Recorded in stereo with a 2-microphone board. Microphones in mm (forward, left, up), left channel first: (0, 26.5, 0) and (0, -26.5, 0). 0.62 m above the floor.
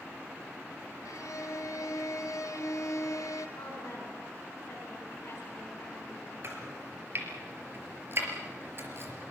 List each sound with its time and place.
1.1 s a violin: 80° left, 2.5 m
3.6 s a woman speaking: 45° left (ahead or behind), 7.5 m
6.4 s chopping: 45° right (ahead or behind), 4.5 m